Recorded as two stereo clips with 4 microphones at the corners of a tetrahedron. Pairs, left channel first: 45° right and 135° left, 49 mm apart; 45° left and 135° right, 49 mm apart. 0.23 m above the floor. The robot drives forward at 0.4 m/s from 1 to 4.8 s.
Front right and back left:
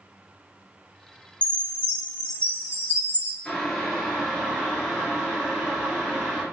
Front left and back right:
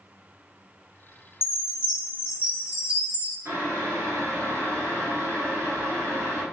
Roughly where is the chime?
Behind.